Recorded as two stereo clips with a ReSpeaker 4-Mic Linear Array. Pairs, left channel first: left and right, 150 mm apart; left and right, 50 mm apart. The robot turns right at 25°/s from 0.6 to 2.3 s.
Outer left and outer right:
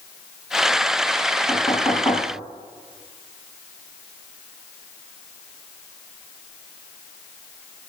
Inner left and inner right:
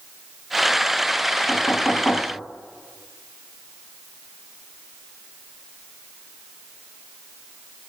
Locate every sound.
1.5 s knocking: centre (ahead or behind), 7 m; by 2.3 s 20° left (ahead or behind), 7 m